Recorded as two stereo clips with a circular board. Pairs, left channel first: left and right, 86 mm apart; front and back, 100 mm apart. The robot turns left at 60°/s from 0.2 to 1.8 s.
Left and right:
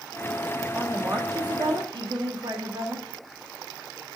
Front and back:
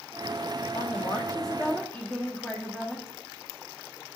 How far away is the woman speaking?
About 1.4 m.